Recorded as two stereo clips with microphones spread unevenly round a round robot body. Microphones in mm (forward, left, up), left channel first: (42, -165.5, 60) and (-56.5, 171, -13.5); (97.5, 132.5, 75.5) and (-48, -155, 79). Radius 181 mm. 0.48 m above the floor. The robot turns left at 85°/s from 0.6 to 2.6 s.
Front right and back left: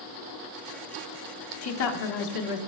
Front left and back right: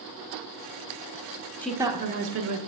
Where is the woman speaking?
20° right, 1.0 m; by 2.6 s 100° right, 1.0 m.